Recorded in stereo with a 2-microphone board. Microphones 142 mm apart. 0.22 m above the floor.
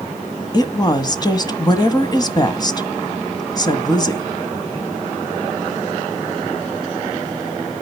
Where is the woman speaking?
30° left (ahead or behind), 1.5 m.